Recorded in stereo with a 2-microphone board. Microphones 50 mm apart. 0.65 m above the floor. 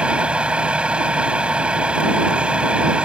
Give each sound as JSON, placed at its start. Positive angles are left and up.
{"t": 0.0, "sound": "a vehicle", "side_deg": -20}